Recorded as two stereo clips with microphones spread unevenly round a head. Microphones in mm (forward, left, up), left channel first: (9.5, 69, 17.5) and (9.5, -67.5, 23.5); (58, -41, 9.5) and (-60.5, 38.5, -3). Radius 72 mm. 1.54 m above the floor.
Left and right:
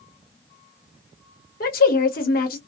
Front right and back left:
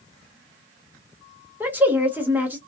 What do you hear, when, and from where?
1.6 s a woman speaking: 65° left, 0.9 m